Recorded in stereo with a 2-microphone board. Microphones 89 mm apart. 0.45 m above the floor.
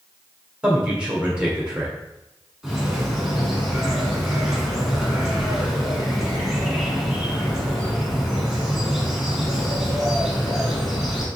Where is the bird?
5° right (ahead or behind), 1.2 m.